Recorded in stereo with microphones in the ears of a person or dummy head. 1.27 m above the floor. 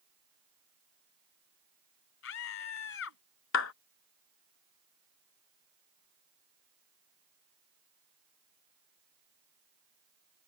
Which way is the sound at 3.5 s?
80° left.